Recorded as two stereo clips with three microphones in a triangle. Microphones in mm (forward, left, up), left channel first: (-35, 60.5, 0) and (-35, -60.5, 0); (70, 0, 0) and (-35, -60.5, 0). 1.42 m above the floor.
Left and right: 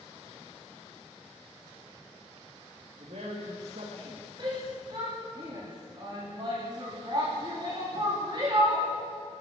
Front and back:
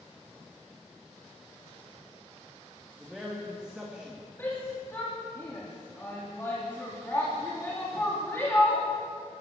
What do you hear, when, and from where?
3.0 s a man speaking: 65° right, 2.5 m
4.4 s a shout: 40° right, 3.5 m